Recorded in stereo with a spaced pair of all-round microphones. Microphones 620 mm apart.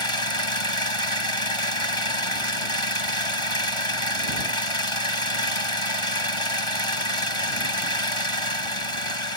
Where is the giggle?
No giggle in this recording.